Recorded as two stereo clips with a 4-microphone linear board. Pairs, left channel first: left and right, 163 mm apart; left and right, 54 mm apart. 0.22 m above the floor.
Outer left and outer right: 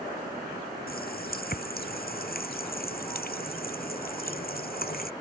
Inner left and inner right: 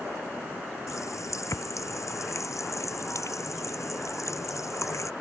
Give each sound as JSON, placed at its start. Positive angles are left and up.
{"t": 0.9, "sound": "a running tap", "side_deg": 70}